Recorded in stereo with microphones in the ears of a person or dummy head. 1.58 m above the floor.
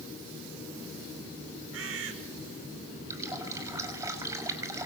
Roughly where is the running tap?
Centre.